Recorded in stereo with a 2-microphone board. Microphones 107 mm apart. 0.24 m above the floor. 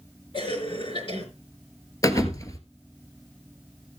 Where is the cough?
55° left (ahead or behind), 4.5 m.